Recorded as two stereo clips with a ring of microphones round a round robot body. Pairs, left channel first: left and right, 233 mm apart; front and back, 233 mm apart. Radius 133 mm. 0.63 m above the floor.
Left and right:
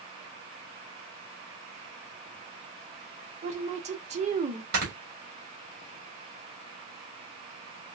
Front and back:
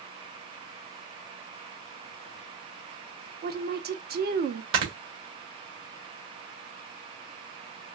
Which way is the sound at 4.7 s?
145° right.